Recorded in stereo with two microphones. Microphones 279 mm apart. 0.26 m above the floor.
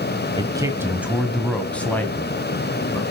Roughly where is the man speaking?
Centre.